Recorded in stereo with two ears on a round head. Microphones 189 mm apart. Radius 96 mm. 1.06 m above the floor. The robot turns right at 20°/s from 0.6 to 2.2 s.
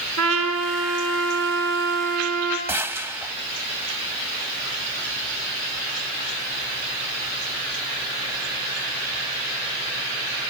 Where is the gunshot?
10° right (ahead or behind), 1.4 m.